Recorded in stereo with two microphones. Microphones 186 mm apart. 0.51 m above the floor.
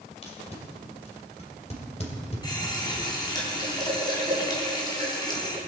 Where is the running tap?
25° left (ahead or behind), 3 m.